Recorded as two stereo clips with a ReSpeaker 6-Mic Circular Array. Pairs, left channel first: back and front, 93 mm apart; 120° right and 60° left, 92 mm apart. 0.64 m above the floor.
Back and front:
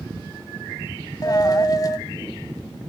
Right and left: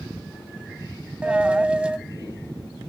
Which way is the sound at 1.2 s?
135° left.